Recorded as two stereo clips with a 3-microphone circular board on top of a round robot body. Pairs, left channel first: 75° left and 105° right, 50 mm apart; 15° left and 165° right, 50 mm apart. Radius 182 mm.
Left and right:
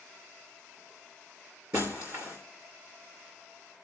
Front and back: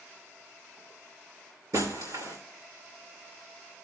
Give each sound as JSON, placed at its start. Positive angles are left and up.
{"t": 1.7, "sound": "breaking glass", "azimuth_deg": -140, "distance_m": 3.0}